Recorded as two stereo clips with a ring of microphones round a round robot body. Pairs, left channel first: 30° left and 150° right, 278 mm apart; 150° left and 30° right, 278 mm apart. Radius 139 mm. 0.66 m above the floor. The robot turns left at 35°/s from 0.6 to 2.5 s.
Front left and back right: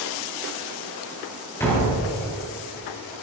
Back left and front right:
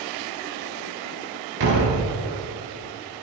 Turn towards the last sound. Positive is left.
turn(degrees=-85)